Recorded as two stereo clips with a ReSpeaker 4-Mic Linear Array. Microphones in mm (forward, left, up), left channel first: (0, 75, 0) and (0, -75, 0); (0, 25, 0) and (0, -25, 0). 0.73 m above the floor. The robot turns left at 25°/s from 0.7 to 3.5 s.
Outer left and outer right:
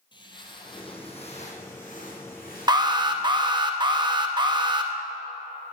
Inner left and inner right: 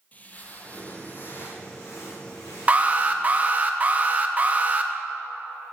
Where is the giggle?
No giggle in this recording.